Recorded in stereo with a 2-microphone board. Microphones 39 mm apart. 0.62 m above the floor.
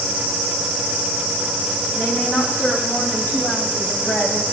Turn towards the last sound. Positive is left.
turn(degrees=75)  # may be behind; listen again after turning